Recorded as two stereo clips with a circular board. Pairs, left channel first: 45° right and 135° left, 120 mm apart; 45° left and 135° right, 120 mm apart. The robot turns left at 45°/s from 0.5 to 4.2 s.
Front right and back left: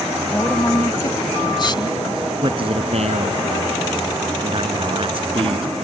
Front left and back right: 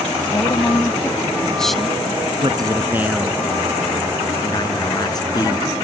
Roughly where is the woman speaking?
Ahead.